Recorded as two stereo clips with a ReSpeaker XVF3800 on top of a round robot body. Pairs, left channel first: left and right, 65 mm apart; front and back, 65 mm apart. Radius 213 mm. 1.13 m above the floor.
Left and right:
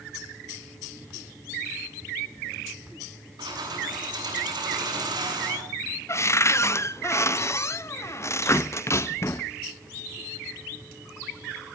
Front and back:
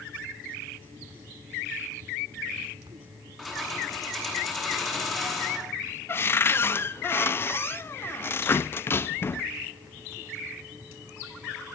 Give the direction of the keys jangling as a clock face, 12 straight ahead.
3 o'clock.